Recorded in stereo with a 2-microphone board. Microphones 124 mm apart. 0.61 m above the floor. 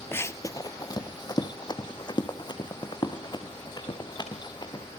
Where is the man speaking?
I don't hear a man speaking.